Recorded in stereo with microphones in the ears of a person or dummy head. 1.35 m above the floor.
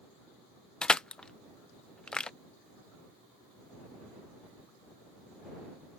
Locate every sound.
0.8 s crushing: 10° left (ahead or behind)